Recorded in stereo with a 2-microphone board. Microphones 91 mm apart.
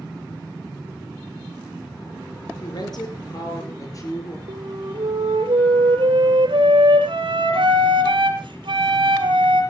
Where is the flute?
75° right (ahead or behind), 5.5 m.